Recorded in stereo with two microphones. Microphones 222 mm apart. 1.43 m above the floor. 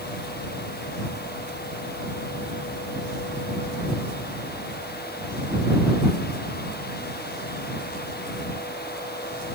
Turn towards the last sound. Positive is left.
No sound to turn to.